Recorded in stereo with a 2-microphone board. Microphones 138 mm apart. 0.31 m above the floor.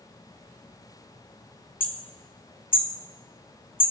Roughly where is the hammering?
Left.